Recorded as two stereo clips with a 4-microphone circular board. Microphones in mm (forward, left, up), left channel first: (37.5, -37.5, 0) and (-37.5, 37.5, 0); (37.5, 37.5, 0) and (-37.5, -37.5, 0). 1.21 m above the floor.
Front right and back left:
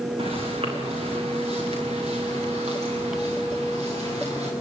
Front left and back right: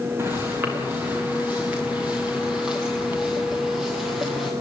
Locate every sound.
0.2 s footsteps: 160° left, 6 m; by 4.5 s 135° left, 9 m